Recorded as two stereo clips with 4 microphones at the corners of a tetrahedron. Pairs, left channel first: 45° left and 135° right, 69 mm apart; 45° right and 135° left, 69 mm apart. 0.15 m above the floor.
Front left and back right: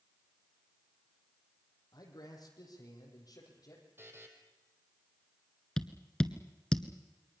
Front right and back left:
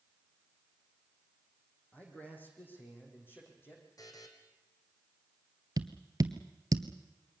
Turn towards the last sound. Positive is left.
turn(degrees=125)